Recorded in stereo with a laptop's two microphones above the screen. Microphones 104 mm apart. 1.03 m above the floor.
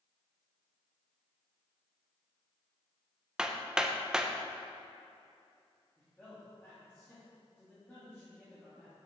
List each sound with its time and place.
3.4 s hammering: 10° right (ahead or behind), 0.5 m
6.0 s a man speaking: 15° left (ahead or behind), 2.5 m